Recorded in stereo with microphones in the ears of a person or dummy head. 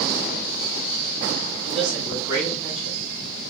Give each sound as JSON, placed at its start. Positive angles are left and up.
{"t": 1.6, "sound": "a man speaking", "side_deg": -35, "distance_m": 1.7}